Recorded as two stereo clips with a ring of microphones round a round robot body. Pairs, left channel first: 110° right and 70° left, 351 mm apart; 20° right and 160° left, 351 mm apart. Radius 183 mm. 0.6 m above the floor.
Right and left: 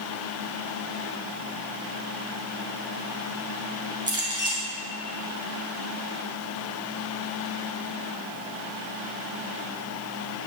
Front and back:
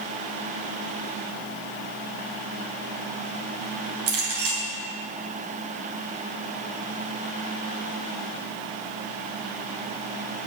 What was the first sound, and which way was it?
A clink, 145° left.